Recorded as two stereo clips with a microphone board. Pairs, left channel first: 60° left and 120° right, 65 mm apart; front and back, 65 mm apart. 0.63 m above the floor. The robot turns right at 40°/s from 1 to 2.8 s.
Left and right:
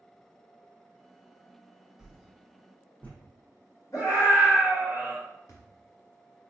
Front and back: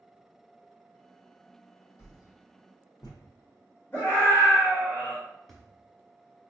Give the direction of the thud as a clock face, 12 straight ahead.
9 o'clock.